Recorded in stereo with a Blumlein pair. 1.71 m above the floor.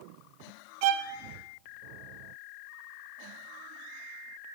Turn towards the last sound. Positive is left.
turn(degrees=-45)